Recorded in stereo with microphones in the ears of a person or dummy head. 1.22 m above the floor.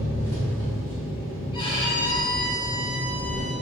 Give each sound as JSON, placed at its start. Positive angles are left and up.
{"t": 0.0, "sound": "an engine running", "side_deg": 15, "distance_m": 1.0}
{"t": 1.5, "sound": "a violin", "side_deg": 25, "distance_m": 0.5}